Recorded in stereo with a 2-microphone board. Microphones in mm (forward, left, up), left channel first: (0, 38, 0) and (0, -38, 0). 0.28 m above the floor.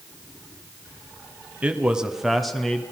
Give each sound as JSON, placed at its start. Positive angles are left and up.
{"t": 1.6, "sound": "a man speaking", "side_deg": -15, "distance_m": 1.8}